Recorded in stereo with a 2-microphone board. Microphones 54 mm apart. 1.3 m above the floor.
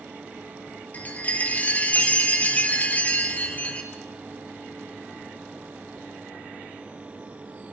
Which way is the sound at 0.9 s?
30° left (ahead or behind).